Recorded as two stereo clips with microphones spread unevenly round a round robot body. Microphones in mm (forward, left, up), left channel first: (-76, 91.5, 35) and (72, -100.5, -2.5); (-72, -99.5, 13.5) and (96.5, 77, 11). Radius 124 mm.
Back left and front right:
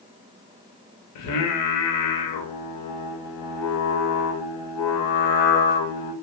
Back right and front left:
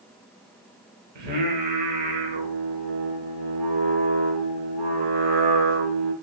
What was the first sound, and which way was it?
Singing, 105° left.